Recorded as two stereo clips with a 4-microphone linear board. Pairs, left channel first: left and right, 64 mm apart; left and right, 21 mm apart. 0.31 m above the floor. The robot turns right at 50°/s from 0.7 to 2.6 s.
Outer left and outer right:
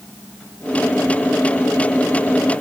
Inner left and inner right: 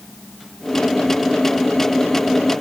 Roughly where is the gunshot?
I don't hear a gunshot.